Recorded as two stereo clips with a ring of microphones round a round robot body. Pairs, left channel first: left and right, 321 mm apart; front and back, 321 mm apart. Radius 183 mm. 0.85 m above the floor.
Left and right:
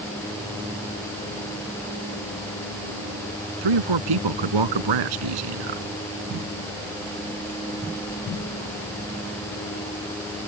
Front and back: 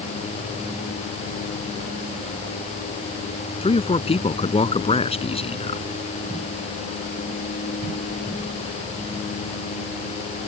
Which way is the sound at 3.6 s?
75° right.